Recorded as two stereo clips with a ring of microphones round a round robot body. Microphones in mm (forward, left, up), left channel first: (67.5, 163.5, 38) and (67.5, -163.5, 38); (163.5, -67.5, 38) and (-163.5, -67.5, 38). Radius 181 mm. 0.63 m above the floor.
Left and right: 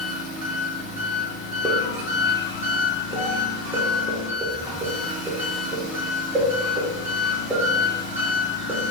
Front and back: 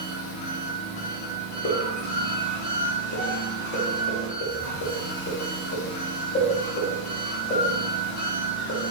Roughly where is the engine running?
Ahead.